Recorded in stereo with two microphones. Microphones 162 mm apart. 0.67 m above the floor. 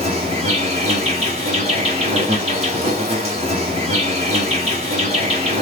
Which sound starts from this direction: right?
An insect, at 0.0 s.